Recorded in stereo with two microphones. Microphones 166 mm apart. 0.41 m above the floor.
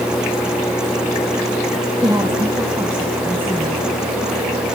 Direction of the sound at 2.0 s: 25° right (ahead or behind).